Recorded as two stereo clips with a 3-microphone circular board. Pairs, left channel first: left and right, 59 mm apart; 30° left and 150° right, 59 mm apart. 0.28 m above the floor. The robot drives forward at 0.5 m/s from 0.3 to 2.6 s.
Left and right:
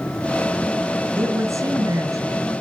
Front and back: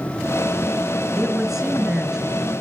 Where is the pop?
No pop in this recording.